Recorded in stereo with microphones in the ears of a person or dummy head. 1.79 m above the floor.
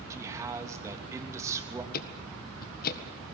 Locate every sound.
0.1 s a man speaking: 15° right (ahead or behind), 3 m
1.9 s ticking: 50° left (ahead or behind), 1.6 m